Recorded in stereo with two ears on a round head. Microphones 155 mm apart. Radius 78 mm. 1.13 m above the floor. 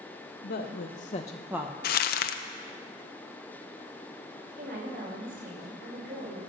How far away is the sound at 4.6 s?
About 5.5 m.